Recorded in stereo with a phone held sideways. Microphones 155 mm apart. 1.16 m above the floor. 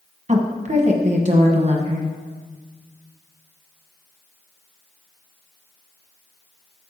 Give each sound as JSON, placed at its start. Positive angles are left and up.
{"t": 0.3, "sound": "a woman speaking", "side_deg": -45, "distance_m": 1.0}